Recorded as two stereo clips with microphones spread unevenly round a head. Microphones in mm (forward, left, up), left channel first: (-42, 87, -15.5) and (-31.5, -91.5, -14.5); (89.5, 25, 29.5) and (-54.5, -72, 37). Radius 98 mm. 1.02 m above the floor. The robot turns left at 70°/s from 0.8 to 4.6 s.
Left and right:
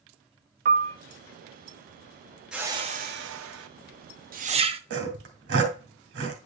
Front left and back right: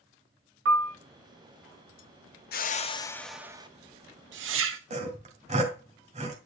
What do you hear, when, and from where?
0.7 s a piano: 130° right, 0.9 m; by 1.0 s 140° right, 0.9 m
2.5 s a whoosh: straight ahead, 1.0 m; by 4.8 s 145° right, 1.0 m
4.9 s sawing: 95° right, 2 m